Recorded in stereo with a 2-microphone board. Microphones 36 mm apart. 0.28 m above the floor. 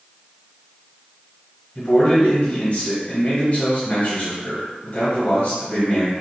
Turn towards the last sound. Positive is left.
turn(degrees=40)  # may be behind; listen again after turning